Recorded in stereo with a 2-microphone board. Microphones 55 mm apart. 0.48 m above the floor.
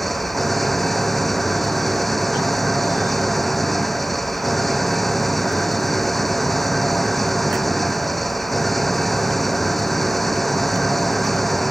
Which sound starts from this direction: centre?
An engine running, at 0.0 s.